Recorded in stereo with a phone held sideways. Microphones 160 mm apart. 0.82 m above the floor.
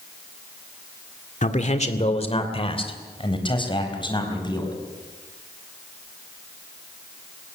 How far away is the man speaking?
About 1.8 m.